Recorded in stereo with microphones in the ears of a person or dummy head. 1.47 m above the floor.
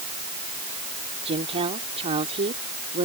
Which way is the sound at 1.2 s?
30° right (ahead or behind).